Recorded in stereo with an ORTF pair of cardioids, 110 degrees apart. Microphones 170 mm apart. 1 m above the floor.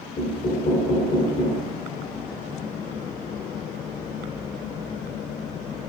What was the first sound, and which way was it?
Knocking, 45° left.